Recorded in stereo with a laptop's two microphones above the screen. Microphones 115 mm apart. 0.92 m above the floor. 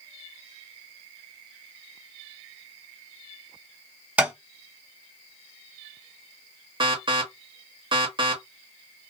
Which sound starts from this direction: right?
An alarm, at 6.8 s.